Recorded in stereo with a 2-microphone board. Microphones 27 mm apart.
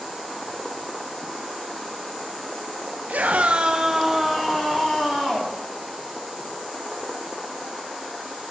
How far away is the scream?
About 1.0 m.